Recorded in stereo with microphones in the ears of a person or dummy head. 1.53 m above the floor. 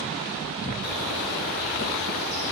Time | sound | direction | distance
0.8 | a bird | 60° left (ahead or behind) | 5.5 m